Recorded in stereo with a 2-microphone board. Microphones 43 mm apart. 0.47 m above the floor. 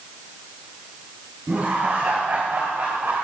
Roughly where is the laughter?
Right.